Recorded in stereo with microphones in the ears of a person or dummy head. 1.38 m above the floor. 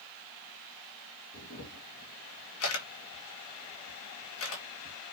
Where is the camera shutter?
80° left, 3 m.